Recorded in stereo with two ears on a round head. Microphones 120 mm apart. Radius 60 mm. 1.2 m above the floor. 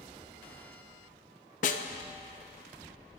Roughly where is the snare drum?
Left.